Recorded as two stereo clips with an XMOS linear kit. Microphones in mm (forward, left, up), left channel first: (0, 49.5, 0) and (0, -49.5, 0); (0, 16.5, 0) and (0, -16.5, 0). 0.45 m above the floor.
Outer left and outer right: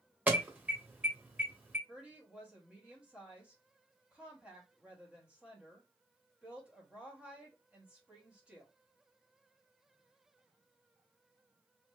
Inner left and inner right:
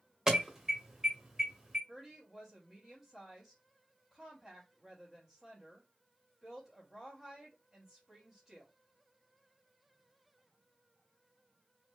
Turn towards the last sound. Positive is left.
turn(degrees=-10)  # may be behind; listen again after turning